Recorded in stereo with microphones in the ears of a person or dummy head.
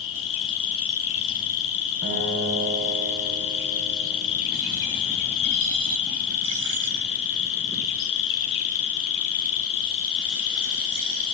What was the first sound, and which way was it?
An insect, 75° left (ahead or behind).